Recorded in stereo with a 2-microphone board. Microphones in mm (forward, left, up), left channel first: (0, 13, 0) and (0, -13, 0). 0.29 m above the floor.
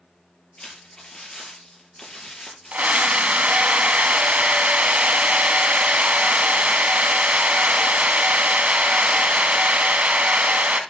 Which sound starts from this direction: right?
A scream, at 2.7 s.